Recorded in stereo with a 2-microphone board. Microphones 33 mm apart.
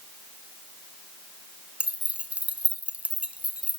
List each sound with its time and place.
1.8 s keys jangling: 40° right (ahead or behind), 1.9 m